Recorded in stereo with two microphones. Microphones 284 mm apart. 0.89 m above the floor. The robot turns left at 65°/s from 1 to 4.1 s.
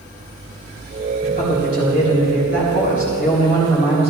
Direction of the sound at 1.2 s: 160° left.